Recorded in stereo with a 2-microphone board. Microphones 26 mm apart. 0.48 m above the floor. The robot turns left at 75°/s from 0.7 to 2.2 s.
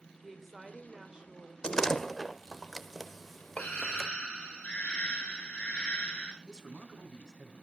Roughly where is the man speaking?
Right.